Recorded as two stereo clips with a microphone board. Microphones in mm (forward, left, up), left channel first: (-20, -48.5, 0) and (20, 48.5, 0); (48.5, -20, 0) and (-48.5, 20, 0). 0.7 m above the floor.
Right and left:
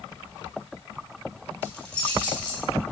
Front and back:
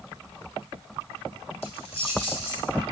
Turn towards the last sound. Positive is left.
turn(degrees=-35)